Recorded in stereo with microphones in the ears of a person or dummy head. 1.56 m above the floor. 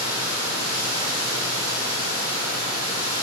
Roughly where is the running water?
Centre.